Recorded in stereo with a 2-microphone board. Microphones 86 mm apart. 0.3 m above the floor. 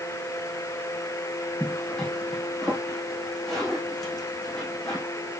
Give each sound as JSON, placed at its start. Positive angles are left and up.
{"t": 1.6, "sound": "a zipper", "side_deg": 5, "distance_m": 5.5}